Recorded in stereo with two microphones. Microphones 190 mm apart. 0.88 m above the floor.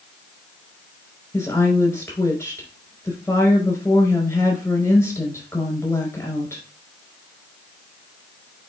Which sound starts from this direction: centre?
A woman speaking, at 1.3 s.